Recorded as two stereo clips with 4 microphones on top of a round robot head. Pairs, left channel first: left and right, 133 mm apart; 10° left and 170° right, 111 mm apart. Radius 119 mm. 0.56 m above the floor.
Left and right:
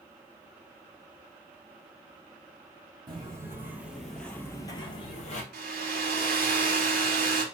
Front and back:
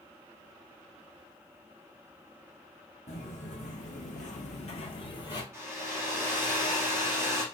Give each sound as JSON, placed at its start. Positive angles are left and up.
{"t": 3.1, "sound": "footsteps", "azimuth_deg": -30, "distance_m": 1.4}
{"t": 5.5, "sound": "a hair dryer", "azimuth_deg": -95, "distance_m": 0.8}